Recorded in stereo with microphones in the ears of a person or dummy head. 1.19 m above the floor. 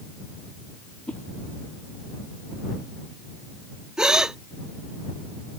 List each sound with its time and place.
1.1 s a whoosh: 10° left (ahead or behind)
4.0 s a gasp: 5° right (ahead or behind)